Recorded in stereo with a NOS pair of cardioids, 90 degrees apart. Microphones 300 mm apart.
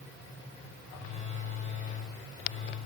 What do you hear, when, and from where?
0.9 s a phone buzzing: 25° left, 6 m